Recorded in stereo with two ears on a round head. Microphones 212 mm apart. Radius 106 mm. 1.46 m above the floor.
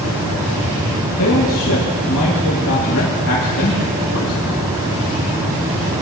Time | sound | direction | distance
1.2 | a man speaking | 65° left (ahead or behind) | 2 m